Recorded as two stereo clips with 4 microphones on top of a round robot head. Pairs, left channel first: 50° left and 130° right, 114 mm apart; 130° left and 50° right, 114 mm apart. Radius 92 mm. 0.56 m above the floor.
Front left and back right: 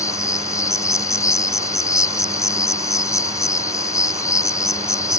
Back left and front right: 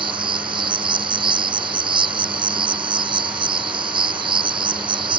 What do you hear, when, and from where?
0.0 s an insect: 10° right